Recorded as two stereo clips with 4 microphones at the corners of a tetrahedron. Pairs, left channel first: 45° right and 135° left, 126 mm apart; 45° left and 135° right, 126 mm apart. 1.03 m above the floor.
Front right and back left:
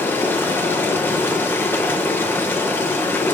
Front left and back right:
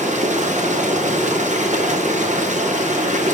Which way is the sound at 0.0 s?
120° right.